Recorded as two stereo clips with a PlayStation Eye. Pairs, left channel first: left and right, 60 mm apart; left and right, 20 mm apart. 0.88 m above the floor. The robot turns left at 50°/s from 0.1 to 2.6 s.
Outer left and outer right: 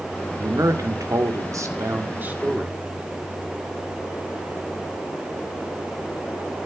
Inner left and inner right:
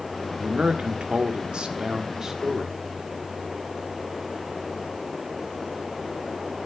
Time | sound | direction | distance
0.4 | a man speaking | 55° right | 2.0 m